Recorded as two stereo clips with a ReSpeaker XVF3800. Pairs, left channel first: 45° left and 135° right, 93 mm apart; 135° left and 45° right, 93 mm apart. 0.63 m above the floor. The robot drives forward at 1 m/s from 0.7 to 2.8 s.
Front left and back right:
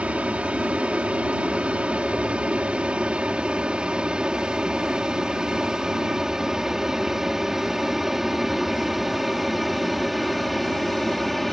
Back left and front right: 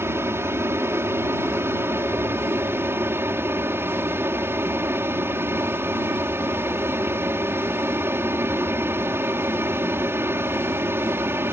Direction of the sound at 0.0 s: 70° right.